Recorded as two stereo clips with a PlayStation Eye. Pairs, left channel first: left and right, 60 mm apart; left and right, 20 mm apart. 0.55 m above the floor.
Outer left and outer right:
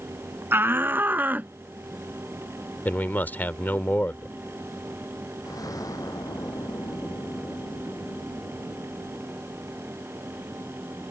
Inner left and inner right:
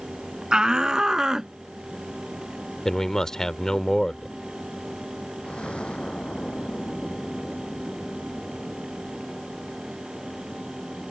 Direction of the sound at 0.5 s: 40° right (ahead or behind).